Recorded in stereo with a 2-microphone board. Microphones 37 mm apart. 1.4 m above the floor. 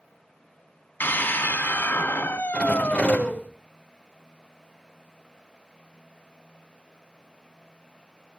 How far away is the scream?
About 2.5 m.